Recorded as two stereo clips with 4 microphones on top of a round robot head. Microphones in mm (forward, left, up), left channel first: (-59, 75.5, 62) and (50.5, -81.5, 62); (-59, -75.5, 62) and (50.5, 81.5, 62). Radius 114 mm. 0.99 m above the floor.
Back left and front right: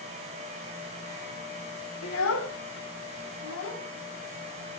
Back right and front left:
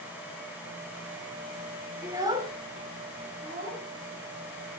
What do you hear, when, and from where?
2.0 s a child speaking: 135° left, 2.5 m; by 4.8 s 95° left, 5.5 m